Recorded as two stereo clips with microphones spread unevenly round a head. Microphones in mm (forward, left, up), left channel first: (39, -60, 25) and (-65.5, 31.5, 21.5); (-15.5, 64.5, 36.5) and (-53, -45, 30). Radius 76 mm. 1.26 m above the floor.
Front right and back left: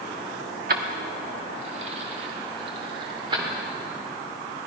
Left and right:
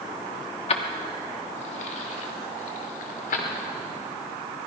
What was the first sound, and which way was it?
Keys jangling, 105° left.